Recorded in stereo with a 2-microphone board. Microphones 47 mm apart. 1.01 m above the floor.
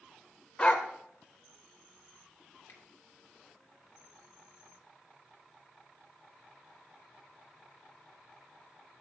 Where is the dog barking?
25° left (ahead or behind), 1.0 m.